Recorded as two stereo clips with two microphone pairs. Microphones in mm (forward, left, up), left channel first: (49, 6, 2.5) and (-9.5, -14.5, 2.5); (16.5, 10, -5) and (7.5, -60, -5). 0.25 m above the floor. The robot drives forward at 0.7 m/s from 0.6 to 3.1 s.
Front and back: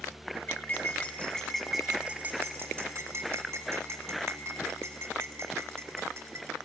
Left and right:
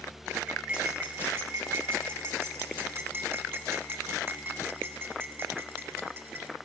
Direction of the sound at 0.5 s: 30° right.